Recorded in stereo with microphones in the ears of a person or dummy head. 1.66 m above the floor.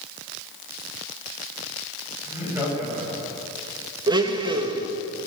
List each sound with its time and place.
2.3 s laughter: 10° right (ahead or behind), 8 m
4.1 s a blender: 25° right (ahead or behind), 1.6 m